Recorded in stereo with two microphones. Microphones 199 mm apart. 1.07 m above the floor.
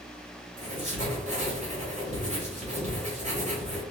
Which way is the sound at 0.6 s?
35° right (ahead or behind).